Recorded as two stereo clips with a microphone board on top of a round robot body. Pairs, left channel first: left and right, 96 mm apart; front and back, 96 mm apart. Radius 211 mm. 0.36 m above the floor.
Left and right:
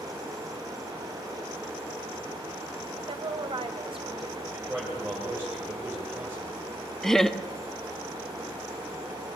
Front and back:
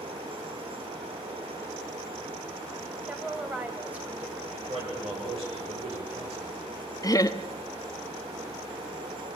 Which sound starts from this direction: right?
A woman speaking, at 3.1 s.